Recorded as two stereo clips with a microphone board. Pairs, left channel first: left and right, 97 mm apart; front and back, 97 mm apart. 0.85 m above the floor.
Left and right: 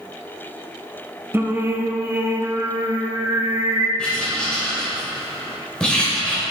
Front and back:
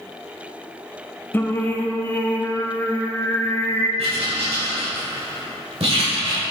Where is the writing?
170° left, 2.5 m.